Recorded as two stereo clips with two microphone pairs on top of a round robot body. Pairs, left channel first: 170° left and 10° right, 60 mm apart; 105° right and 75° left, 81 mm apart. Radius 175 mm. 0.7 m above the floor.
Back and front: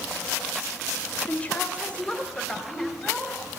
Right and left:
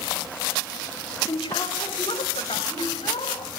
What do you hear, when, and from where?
1.3 s a woman speaking: 120° right, 3.5 m; by 3.5 s 105° right, 6 m